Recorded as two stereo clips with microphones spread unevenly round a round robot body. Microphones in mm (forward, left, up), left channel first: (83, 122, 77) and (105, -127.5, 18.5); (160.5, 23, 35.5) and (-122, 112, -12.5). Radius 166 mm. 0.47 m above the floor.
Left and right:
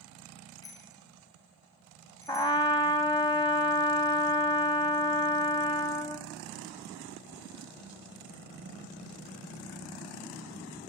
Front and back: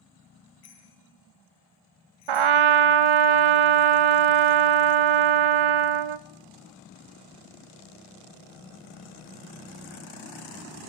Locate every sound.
0.6 s a bicycle bell: 20° left, 9.5 m; by 2.6 s 15° left, 11 m
2.3 s a trumpet: 170° left, 0.6 m